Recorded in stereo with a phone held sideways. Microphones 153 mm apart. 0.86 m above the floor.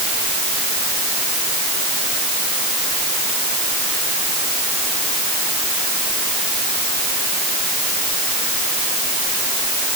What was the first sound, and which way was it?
Only background noise.